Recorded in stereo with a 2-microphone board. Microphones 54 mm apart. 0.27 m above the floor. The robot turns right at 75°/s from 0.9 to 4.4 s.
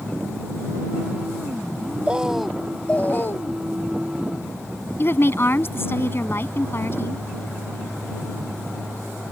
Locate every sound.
2.1 s a bird: 30° right; by 3.6 s 85° left
5.0 s a woman speaking: 45° left (ahead or behind)